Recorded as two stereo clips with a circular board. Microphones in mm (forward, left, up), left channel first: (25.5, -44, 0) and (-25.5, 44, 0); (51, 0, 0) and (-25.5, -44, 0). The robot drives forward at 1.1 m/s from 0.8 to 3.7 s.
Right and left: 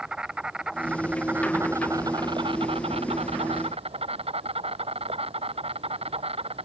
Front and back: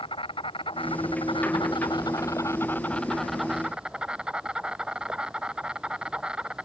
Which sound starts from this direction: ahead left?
An insect, at 0.0 s.